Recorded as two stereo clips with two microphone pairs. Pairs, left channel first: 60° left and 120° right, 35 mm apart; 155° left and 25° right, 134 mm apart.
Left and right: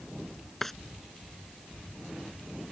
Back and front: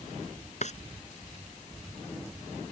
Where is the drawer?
140° left.